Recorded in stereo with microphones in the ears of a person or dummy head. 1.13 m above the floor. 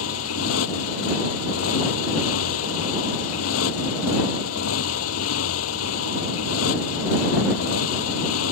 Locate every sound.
0.0 s a motorcycle: 85° left